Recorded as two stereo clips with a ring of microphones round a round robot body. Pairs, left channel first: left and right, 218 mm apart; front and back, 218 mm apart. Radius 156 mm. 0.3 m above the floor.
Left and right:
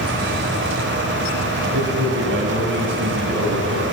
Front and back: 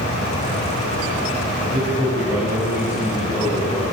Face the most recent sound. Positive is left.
turn(degrees=-80)